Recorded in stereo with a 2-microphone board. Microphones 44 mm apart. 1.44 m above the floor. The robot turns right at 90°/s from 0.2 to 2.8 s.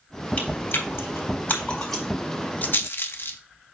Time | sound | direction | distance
0.4 | chewing | 35° left (ahead or behind) | 3.5 m
2.6 | a rattle | 40° left (ahead or behind) | 0.7 m